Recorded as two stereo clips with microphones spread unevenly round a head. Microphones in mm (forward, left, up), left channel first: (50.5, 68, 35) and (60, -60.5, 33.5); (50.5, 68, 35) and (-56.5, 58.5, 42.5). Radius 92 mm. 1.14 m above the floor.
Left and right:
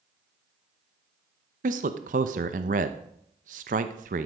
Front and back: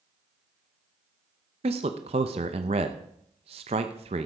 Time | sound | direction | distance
1.6 | a man speaking | 125° right | 0.7 m